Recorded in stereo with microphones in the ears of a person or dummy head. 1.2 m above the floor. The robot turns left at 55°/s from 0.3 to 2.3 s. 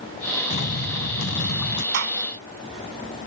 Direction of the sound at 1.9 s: 75° right (ahead or behind).